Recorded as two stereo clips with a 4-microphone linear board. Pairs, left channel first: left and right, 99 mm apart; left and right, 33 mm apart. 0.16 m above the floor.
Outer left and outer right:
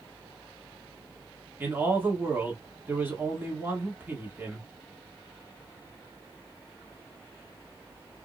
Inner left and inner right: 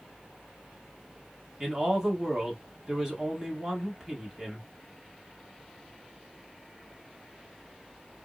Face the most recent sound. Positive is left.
turn(degrees=-20)  # may be behind; listen again after turning